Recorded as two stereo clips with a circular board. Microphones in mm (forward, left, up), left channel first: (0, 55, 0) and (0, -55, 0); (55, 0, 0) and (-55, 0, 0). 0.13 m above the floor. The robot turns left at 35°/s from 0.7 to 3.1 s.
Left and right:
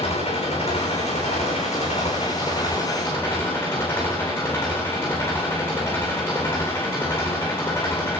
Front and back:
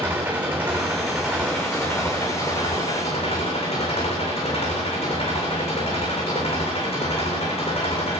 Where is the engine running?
105° left, 7.5 m; by 8.2 s 25° left, 7.5 m.